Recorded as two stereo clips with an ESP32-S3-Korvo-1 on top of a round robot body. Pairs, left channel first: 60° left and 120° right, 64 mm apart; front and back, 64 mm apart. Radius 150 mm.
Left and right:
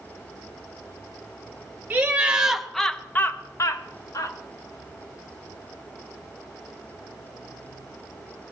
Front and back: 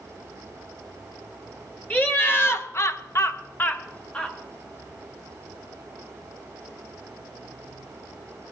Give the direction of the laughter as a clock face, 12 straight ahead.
2 o'clock.